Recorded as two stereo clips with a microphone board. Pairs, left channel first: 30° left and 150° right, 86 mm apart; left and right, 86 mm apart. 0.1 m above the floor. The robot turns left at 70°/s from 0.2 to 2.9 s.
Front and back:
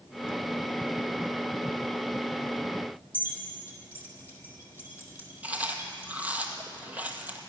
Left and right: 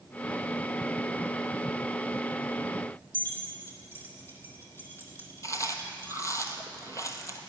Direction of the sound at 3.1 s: 150° left.